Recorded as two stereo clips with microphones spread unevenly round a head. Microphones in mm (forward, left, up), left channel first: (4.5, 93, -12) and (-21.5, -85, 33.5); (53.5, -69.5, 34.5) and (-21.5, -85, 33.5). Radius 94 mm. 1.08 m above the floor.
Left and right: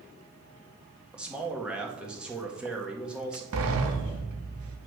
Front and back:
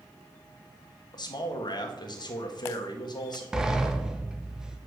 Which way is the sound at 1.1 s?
10° right.